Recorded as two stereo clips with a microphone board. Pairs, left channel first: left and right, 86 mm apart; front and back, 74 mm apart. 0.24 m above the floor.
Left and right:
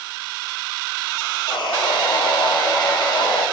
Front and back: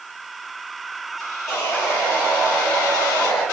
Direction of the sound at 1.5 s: 55° left.